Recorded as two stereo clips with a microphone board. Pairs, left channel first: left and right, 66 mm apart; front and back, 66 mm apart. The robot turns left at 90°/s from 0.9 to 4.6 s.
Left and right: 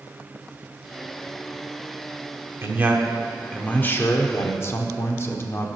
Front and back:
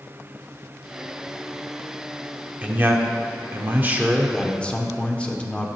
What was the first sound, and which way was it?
A man speaking, 120° right.